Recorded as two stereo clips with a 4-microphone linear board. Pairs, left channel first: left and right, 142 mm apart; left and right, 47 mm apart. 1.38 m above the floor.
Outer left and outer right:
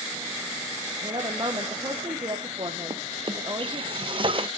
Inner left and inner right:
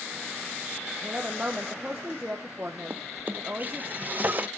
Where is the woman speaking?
35° right (ahead or behind), 1.0 m.